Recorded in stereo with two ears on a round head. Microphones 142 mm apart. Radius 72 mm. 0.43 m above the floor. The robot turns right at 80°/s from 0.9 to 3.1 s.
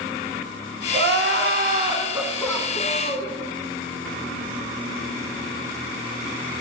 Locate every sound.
0.9 s crying: 110° right, 0.9 m; by 3.3 s 65° left, 0.9 m